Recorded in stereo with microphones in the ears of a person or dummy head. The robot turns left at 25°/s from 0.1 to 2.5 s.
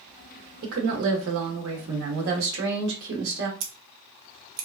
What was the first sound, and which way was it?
A woman speaking, 65° right.